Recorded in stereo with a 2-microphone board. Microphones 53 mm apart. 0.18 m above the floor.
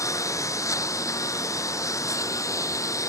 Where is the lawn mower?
80° left; by 3.1 s 90° left.